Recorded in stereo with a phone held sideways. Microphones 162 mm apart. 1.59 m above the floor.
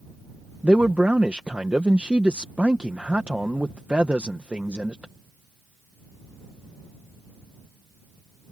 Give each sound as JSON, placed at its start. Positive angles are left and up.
{"t": 0.6, "sound": "a man speaking", "side_deg": -10}